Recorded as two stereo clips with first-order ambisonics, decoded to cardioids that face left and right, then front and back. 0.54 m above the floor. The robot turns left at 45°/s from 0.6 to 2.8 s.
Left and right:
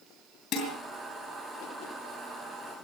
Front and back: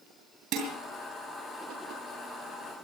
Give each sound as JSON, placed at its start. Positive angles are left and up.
{"t": 0.5, "sound": "dishes clattering", "azimuth_deg": 145, "distance_m": 7.0}